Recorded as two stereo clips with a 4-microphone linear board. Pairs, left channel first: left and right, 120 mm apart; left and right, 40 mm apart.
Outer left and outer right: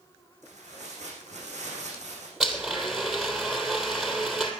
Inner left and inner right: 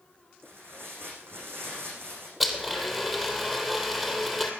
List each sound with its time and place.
0.4 s tearing paper: 80° right, 8 m
2.4 s a blender: 5° right (ahead or behind), 3 m